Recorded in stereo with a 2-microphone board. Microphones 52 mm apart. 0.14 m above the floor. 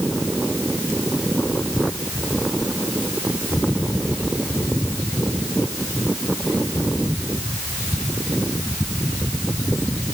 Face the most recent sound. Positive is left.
No sound to turn to.